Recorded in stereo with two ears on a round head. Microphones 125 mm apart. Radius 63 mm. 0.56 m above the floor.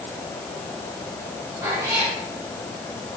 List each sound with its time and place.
1.6 s a cat meowing: 25° right (ahead or behind), 7 m